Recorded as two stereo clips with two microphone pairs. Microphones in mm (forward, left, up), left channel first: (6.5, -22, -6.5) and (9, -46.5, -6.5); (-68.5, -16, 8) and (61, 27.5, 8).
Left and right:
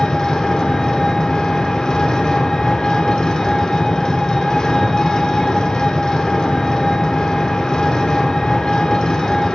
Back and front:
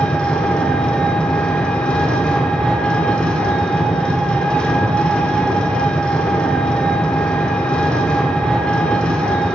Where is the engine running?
120° left, 1.1 m.